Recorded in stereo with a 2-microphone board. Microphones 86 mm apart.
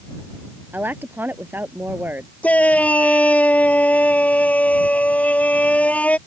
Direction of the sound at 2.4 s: 15° left (ahead or behind).